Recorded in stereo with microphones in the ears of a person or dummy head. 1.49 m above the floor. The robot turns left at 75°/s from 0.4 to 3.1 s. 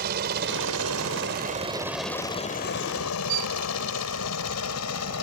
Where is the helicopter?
50° right (ahead or behind); by 5.2 s 80° left.